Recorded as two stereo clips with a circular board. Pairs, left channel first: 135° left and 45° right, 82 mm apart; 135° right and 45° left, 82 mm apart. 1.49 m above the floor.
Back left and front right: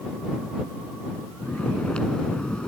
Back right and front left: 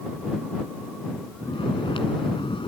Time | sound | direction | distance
1.4 | snoring | 145° right | ?